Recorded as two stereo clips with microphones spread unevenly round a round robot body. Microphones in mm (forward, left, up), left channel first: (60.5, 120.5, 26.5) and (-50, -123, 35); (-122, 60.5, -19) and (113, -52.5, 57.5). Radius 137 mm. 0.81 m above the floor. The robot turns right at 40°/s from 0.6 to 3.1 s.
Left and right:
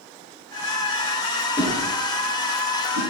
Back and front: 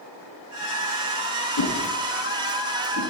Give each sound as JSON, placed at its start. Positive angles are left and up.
{"t": 1.6, "sound": "a whoosh", "azimuth_deg": 150, "distance_m": 9.0}